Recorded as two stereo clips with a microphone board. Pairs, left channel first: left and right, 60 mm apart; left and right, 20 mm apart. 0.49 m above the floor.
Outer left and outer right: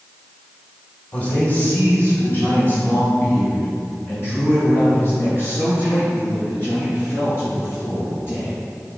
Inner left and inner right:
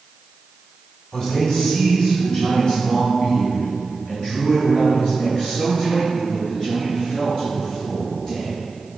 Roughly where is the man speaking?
Left.